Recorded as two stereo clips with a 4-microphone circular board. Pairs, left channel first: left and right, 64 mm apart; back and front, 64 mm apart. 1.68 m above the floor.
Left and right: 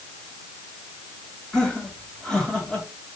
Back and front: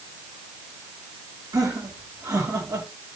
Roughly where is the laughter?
Ahead.